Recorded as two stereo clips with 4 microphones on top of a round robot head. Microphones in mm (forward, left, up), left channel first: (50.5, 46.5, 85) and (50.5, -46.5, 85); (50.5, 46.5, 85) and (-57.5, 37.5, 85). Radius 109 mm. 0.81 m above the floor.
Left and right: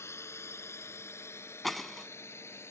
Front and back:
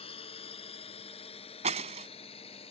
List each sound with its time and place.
0.0 s a drone: 30° left
1.6 s breaking glass: straight behind